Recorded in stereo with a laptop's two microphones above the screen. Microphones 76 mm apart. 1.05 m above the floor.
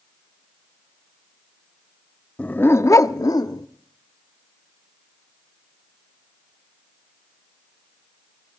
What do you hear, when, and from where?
2.4 s a dog barking: 15° left (ahead or behind), 0.7 m; by 3.7 s 55° left (ahead or behind), 0.9 m